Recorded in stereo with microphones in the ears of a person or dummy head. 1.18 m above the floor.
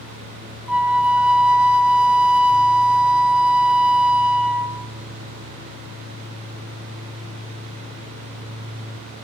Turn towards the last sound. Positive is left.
turn(degrees=0)  # may be behind; listen again after turning